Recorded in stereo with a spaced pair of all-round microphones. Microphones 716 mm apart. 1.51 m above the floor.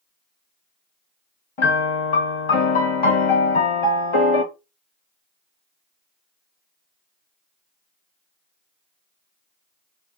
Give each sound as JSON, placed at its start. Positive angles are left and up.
{"t": 1.6, "sound": "a piano", "side_deg": 45, "distance_m": 0.8}